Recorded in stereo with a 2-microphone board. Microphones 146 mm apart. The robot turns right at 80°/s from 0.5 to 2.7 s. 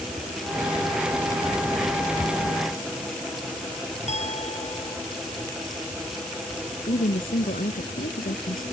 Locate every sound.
4.1 s a clink: 50° left (ahead or behind)
6.9 s a woman speaking: 75° left (ahead or behind)